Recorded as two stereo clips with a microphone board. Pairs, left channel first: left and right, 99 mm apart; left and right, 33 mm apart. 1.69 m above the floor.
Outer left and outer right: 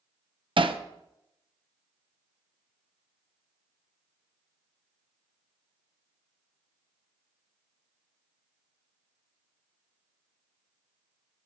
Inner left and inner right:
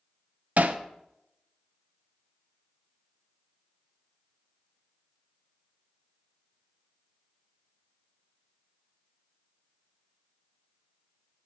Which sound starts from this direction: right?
Hammering, at 0.6 s.